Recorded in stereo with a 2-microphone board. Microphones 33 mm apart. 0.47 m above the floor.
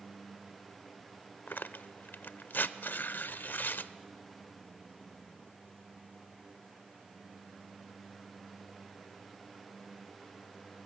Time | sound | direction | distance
1.5 | tearing paper | 70° left (ahead or behind) | 0.5 m